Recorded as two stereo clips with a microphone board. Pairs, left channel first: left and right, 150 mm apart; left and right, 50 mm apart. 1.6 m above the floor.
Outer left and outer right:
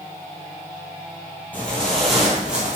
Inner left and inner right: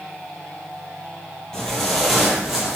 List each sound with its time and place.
1.5 s footsteps: 10° left (ahead or behind), 1.7 m; by 2.8 s 10° right (ahead or behind), 2.0 m